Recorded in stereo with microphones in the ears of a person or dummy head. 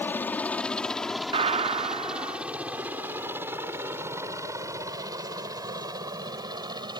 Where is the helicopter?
10° left (ahead or behind); by 7.0 s 25° right (ahead or behind).